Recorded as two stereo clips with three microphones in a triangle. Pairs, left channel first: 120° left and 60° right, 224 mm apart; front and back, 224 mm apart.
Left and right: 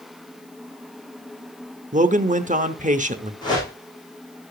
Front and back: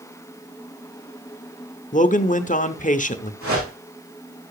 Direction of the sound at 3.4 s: 170° right.